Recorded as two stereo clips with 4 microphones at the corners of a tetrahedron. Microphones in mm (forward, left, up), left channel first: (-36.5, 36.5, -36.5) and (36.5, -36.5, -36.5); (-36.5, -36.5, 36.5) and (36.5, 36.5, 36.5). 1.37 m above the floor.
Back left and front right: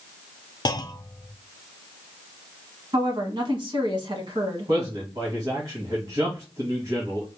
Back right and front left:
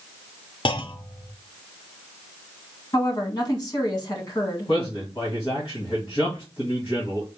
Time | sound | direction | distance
0.7 | a clunk | 175° right | 0.6 m
2.9 | a woman speaking | 80° right | 1.8 m
4.7 | a man speaking | 80° right | 1.7 m